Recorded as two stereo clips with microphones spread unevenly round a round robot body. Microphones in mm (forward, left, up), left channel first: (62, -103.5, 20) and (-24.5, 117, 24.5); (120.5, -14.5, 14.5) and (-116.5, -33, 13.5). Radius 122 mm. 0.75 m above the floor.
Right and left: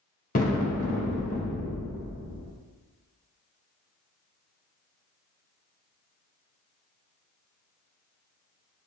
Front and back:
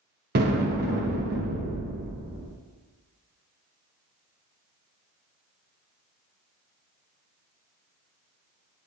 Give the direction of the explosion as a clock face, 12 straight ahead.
4 o'clock.